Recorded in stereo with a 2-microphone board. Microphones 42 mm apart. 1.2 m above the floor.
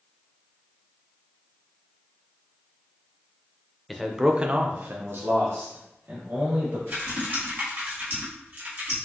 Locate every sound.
3.9 s a man speaking: centre (ahead or behind), 0.5 m; by 6.8 s 65° right (ahead or behind), 1.5 m
6.9 s typing on a keyboard: 45° right (ahead or behind), 1.5 m